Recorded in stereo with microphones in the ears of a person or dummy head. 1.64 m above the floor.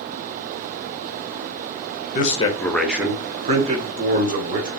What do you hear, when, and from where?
2.1 s a man speaking: 45° left (ahead or behind), 0.9 m; by 4.7 s 45° right (ahead or behind), 2 m